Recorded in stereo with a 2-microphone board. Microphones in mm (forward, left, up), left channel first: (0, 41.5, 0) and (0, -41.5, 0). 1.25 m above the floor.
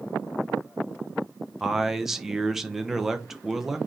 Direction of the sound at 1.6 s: 5° right (ahead or behind).